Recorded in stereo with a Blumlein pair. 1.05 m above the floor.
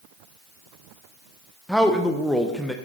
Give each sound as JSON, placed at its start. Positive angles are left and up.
{"t": 1.7, "sound": "a man speaking", "azimuth_deg": 0, "distance_m": 0.7}